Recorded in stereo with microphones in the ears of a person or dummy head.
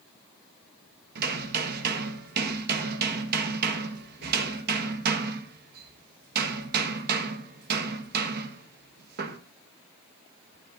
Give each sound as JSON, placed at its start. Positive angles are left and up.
{"t": 1.1, "sound": "hammering", "side_deg": -55, "distance_m": 1.6}